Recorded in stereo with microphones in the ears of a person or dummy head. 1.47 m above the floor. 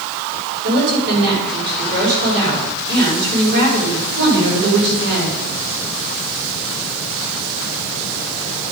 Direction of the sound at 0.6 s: 55° right (ahead or behind).